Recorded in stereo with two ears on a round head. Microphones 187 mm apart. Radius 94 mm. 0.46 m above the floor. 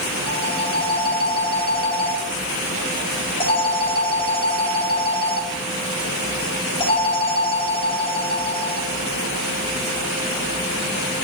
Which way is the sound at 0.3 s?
25° left (ahead or behind).